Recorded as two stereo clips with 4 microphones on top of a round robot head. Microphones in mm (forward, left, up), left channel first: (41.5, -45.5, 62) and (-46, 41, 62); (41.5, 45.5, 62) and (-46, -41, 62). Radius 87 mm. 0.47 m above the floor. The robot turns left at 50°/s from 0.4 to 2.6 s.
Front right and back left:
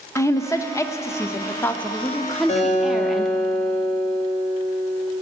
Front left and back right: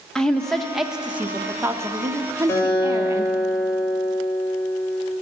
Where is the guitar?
25° right, 2.5 m; by 5.1 s 30° right, 2.5 m.